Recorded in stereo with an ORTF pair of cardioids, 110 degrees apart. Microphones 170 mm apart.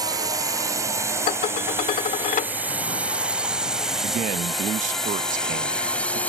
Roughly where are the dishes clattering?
Ahead left.